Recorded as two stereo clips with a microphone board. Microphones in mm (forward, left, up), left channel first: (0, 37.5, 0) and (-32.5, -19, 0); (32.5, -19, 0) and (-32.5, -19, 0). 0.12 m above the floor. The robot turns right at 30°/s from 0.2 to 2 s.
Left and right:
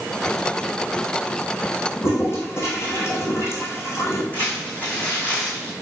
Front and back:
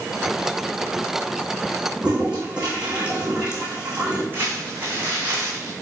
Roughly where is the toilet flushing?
Left.